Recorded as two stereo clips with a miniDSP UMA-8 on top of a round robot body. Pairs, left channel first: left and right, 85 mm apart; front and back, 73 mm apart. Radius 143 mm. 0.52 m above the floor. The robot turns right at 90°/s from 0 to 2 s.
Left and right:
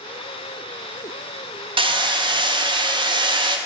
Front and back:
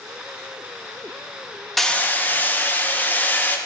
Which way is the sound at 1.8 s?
90° right.